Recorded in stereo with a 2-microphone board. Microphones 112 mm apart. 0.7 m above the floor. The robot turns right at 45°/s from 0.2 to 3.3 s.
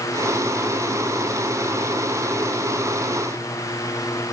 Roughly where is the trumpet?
I don't hear a trumpet.